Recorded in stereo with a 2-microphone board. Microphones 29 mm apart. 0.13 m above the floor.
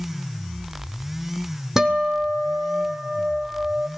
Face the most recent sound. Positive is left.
turn(degrees=-20)  # may be behind; listen again after turning